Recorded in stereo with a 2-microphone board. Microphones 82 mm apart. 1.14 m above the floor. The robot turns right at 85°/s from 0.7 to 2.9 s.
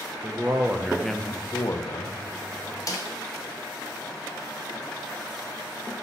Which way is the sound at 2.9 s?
45° left (ahead or behind).